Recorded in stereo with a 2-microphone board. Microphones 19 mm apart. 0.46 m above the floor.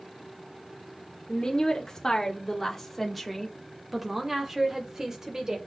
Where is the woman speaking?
35° left (ahead or behind), 1.5 m; by 5.6 s 40° right (ahead or behind), 1.9 m.